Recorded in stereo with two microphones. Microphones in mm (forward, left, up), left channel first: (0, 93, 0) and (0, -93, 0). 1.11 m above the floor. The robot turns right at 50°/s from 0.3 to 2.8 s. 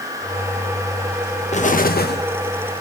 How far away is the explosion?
About 1.1 m.